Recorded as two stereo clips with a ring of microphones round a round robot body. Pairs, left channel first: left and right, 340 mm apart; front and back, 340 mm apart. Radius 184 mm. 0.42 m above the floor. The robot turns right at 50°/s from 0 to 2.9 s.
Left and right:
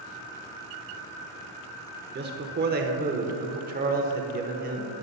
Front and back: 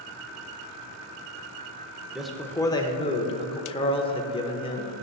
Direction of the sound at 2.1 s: 95° right.